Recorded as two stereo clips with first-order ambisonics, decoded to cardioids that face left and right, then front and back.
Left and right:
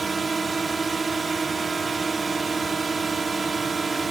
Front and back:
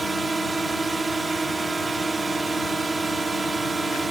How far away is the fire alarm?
I don't hear a fire alarm.